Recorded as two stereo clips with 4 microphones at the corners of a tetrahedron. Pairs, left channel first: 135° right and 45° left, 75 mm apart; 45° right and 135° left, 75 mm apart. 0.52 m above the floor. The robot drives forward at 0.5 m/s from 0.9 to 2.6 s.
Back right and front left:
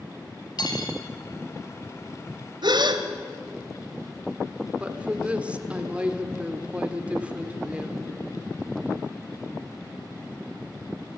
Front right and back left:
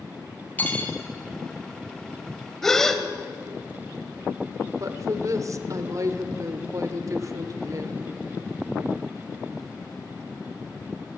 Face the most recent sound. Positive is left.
turn(degrees=115)